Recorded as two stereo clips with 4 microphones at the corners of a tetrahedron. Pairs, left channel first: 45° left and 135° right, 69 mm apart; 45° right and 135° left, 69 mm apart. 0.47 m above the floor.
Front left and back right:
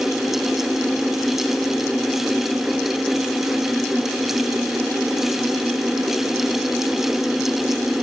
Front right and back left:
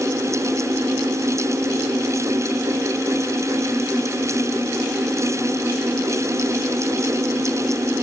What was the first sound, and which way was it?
Only background noise.